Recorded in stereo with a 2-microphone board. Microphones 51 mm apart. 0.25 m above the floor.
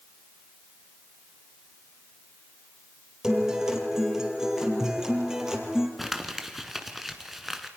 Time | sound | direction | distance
3.2 | a guitar | 10° right (ahead or behind) | 3.5 m
6.0 | crumpling | 5° right (ahead or behind) | 1.8 m